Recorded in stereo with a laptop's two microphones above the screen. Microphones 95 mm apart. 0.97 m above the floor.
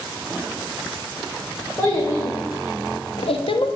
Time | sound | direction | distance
1.8 | a child speaking | 25° left (ahead or behind) | 0.8 m